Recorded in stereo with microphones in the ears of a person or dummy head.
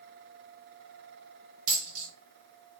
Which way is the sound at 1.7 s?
55° right (ahead or behind).